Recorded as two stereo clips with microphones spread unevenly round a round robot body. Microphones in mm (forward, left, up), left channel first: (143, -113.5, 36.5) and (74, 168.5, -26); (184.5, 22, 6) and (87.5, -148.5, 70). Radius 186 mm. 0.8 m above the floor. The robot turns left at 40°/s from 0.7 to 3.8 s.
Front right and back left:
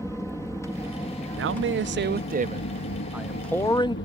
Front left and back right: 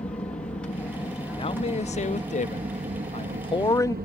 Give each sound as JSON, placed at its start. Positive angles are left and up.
{"t": 0.0, "sound": "an aircraft", "azimuth_deg": 15}
{"t": 1.3, "sound": "a man speaking", "azimuth_deg": 105}